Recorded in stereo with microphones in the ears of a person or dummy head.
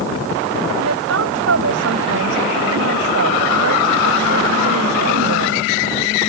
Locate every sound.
0.8 s a woman speaking: 80° right